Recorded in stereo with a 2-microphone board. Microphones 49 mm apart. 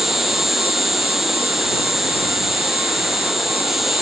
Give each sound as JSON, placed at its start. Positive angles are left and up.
{"t": 0.0, "sound": "an insect", "side_deg": -5}